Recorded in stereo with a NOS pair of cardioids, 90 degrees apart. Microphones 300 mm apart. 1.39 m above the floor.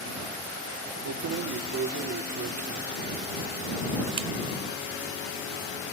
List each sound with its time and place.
1.1 s keys jangling: 55° right; by 4.3 s 45° right